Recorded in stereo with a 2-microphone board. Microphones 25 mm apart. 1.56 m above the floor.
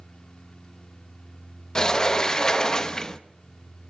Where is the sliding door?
30° left (ahead or behind), 0.9 m.